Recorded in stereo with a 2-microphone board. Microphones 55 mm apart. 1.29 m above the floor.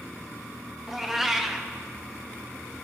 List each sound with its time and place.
0.9 s a cat meowing: 5° right (ahead or behind), 0.8 m